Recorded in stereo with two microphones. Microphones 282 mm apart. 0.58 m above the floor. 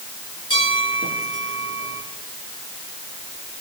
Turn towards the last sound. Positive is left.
turn(degrees=-50)  # may be behind; listen again after turning